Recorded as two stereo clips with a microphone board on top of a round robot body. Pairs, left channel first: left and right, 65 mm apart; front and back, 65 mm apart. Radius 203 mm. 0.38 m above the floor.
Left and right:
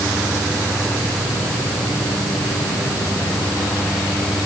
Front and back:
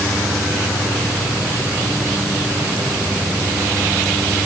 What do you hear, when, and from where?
Only background noise.